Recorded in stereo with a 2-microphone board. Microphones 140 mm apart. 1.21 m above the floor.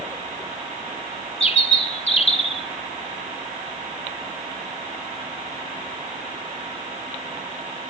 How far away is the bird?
About 1.2 m.